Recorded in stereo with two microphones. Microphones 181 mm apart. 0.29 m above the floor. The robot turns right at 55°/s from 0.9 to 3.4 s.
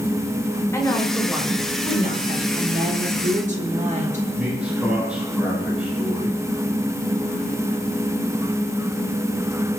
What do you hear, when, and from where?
0.7 s a woman speaking: 165° left, 5 m; by 2.4 s 110° right, 5 m
2.5 s a woman speaking: 90° right, 4.5 m; by 4.3 s 45° right, 4.5 m
4.4 s a man speaking: 5° right (ahead or behind), 8.5 m